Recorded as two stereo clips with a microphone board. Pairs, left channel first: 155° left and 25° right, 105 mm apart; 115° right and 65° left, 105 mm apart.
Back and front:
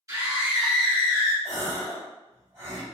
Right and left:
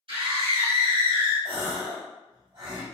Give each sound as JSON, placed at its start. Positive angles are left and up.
{"t": 0.1, "sound": "a scream", "azimuth_deg": 40, "distance_m": 1.5}
{"t": 1.4, "sound": "a gasp", "azimuth_deg": 35, "distance_m": 1.4}